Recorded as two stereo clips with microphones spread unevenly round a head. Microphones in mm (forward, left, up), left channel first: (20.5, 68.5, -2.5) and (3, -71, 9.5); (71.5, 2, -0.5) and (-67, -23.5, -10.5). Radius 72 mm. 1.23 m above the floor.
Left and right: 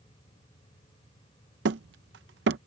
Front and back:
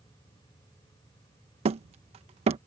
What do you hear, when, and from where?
1.6 s hammering: 120° right